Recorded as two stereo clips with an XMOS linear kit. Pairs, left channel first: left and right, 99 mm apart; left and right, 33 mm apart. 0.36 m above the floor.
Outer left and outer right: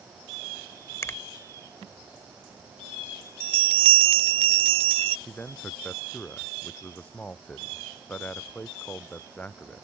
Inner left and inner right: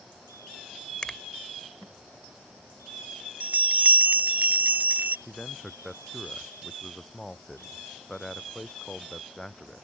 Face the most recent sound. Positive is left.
turn(degrees=15)  # may be behind; listen again after turning